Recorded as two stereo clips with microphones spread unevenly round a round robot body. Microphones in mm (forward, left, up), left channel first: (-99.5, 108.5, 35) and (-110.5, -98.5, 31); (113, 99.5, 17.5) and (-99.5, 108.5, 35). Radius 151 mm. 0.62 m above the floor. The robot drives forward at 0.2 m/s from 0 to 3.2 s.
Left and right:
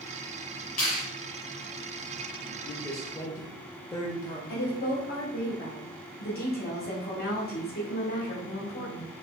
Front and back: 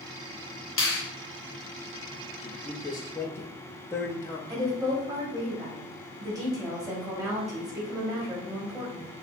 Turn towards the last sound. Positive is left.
turn(degrees=105)